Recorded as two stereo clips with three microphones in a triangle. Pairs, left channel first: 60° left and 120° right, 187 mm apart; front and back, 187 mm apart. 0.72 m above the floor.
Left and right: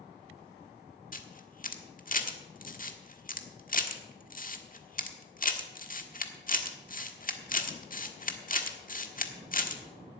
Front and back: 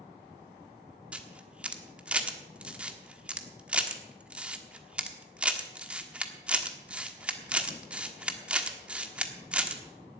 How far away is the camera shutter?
About 1.4 m.